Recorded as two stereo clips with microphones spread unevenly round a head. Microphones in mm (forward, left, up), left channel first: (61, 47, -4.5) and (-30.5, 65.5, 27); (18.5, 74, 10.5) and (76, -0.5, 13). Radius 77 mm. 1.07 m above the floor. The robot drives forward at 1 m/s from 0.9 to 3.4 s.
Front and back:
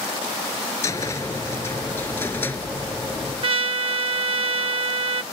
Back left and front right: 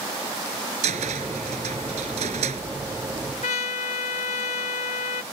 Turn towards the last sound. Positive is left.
turn(degrees=160)